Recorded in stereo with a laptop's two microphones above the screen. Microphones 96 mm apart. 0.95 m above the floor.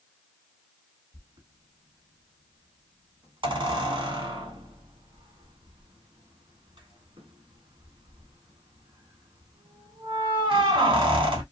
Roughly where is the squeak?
Right.